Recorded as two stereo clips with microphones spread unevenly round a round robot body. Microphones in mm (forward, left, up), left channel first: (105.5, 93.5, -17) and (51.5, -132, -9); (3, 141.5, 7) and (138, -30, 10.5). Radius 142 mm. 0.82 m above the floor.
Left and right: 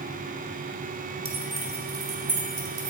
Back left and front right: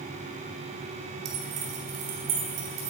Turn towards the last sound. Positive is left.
turn(degrees=-60)